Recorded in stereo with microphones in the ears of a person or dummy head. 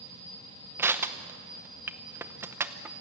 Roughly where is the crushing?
Centre.